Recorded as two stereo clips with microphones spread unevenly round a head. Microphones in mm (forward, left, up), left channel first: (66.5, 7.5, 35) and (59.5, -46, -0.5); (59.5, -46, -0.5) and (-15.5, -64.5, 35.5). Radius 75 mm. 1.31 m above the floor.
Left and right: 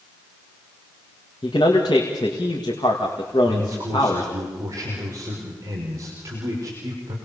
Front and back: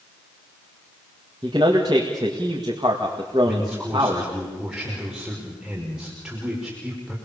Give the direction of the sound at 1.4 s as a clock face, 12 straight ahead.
8 o'clock.